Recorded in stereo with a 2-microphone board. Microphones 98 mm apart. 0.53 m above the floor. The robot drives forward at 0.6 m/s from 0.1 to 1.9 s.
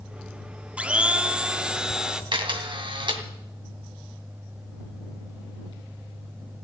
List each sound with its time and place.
0.8 s a blender: 15° right (ahead or behind), 0.8 m; by 2.2 s 10° right (ahead or behind), 1.2 m
2.3 s a camera shutter: 55° right (ahead or behind), 2 m